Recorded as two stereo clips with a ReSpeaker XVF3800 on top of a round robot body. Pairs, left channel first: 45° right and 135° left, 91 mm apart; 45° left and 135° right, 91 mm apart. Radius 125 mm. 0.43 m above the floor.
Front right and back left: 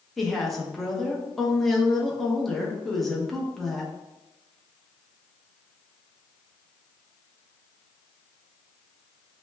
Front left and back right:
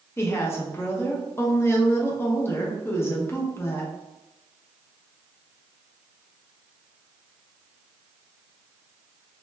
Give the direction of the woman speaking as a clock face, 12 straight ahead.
11 o'clock.